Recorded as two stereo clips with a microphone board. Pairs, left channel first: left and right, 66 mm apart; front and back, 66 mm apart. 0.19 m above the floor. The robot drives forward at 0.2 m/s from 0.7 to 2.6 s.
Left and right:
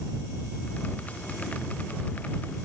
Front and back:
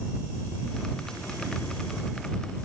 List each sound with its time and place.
Only background noise.